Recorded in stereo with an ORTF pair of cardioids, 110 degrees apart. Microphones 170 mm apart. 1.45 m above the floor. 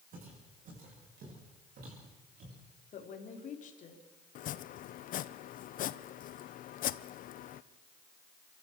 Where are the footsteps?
55° right, 8.5 m; by 2.6 s 65° right, 9 m.